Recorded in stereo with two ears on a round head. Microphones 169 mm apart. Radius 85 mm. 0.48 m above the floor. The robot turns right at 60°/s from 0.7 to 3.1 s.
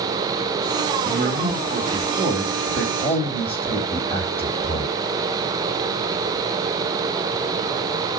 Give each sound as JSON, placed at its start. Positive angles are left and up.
{"t": 1.1, "sound": "a man speaking", "azimuth_deg": -75, "distance_m": 2.5}